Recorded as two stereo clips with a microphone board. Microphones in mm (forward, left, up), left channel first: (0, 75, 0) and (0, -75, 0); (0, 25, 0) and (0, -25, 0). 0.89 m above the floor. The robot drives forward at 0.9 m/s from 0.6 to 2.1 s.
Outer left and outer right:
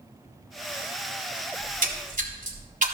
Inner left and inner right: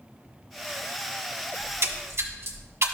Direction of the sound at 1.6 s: 65° right (ahead or behind).